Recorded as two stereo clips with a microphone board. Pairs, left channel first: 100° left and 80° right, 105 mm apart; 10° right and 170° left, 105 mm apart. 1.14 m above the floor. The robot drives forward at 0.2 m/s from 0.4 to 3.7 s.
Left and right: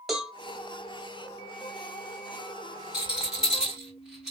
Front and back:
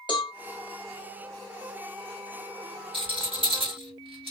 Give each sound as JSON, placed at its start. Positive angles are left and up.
{"t": 0.1, "sound": "a cowbell", "azimuth_deg": 10, "distance_m": 0.9}
{"t": 2.9, "sound": "a rattle", "azimuth_deg": -160, "distance_m": 2.0}